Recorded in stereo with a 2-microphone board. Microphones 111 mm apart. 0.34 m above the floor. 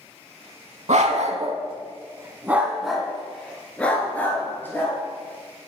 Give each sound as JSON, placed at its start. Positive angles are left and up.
{"t": 0.9, "sound": "a dog barking", "side_deg": -90, "distance_m": 0.7}